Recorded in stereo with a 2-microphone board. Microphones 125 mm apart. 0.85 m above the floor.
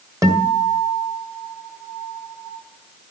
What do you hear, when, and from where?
0.2 s a guitar: 25° right (ahead or behind), 2.5 m